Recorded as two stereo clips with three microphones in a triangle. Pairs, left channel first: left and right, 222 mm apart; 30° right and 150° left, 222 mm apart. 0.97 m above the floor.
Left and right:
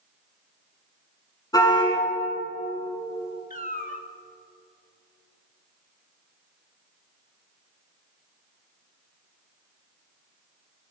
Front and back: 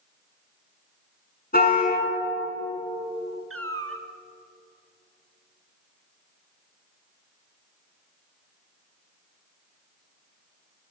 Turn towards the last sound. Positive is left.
turn(degrees=140)